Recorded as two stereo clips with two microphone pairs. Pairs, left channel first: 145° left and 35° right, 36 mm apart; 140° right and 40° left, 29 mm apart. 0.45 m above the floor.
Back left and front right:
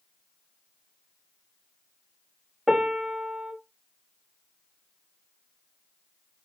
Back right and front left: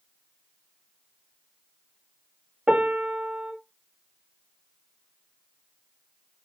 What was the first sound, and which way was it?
A piano, 25° left.